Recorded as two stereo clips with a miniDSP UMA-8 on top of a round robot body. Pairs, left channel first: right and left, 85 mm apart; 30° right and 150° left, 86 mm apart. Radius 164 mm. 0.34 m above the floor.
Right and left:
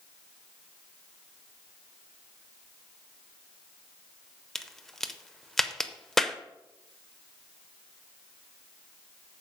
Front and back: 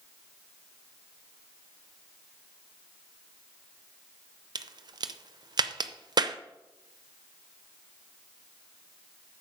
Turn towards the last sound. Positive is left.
turn(degrees=-175)